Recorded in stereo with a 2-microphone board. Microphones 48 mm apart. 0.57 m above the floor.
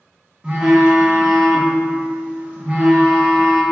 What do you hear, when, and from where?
0.4 s a phone buzzing: 20° right (ahead or behind), 0.5 m